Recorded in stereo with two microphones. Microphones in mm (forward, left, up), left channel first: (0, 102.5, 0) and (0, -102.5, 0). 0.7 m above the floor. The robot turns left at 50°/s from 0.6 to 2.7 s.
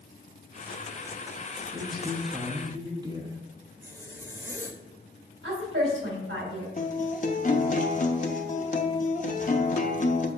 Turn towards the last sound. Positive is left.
turn(degrees=40)  # may be behind; listen again after turning